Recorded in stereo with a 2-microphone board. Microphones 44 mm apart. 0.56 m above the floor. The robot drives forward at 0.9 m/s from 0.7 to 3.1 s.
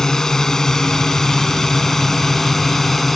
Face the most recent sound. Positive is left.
turn(degrees=5)  # may be behind; listen again after turning